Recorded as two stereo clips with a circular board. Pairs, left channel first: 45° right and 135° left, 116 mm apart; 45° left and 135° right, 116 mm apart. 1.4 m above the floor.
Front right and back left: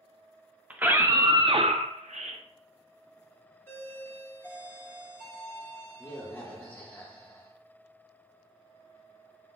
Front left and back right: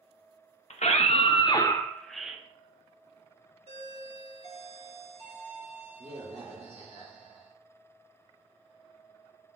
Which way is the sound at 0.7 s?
60° left.